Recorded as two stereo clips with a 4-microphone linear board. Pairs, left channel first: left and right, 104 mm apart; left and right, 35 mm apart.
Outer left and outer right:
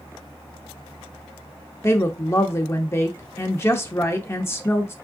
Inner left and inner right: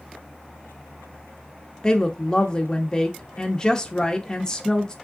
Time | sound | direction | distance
1.8 | a woman speaking | 25° left (ahead or behind) | 0.7 m